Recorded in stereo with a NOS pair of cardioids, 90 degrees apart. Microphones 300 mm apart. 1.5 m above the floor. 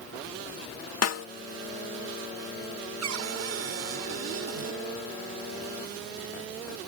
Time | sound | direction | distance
1.0 | a snare drum | 55° left | ?
3.0 | a cupboard door | 60° right | ?